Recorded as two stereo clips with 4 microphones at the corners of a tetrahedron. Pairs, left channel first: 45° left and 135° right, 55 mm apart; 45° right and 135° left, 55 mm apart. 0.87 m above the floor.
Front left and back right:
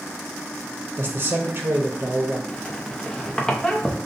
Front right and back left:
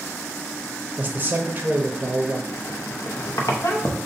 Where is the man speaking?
170° right, 0.6 m.